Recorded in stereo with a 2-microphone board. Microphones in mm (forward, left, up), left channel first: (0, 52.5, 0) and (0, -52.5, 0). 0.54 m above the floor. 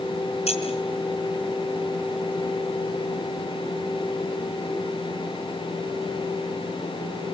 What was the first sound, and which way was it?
Keys jangling, 85° left.